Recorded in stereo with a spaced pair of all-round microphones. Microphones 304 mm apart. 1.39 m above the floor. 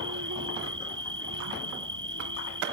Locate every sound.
0.0 s an insect: 75° right (ahead or behind)